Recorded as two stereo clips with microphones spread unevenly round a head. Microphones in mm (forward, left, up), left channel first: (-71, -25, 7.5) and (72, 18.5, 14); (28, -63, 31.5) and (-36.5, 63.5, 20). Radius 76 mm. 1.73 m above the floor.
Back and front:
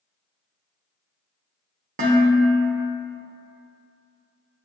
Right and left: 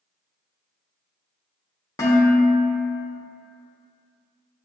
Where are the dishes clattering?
5° right, 1.1 m.